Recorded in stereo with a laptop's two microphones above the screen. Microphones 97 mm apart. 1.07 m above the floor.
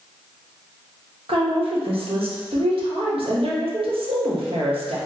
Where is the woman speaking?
75° right (ahead or behind), 0.9 m.